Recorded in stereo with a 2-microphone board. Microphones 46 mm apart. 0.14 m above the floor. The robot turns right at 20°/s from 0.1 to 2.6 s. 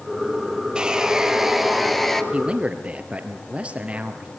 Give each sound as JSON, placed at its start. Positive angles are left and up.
{"t": 0.8, "sound": "sawing", "side_deg": -20, "distance_m": 1.7}
{"t": 2.3, "sound": "a man speaking", "side_deg": -20, "distance_m": 2.5}